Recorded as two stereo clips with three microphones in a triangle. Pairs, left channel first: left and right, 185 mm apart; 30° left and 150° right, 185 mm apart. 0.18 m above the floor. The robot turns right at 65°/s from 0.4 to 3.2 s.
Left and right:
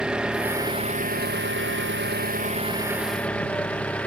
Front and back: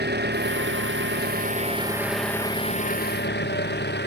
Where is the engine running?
175° right; by 4.1 s 5° left.